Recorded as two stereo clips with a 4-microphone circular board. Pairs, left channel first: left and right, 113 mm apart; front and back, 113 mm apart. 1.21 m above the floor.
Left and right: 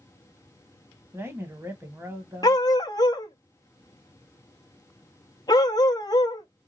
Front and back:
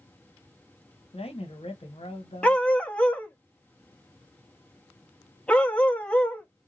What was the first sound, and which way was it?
A man speaking, 25° right.